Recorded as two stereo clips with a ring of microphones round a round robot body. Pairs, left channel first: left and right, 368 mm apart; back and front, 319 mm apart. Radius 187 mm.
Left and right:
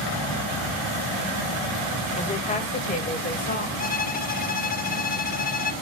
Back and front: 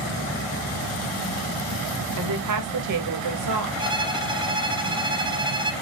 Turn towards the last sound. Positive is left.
turn(degrees=60)